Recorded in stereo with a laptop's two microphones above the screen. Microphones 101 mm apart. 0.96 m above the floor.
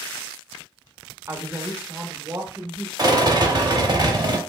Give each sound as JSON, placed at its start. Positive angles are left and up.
{"t": 1.3, "sound": "a woman speaking", "side_deg": -25, "distance_m": 0.6}
{"t": 3.0, "sound": "a rattle", "side_deg": -35, "distance_m": 0.9}